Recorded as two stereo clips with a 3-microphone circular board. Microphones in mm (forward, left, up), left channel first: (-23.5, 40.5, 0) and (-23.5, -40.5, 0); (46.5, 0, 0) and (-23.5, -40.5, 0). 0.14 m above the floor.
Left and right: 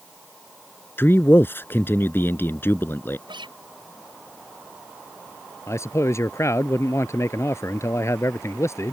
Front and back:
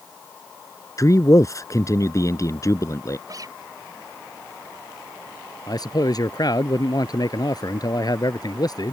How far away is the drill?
I don't hear a drill.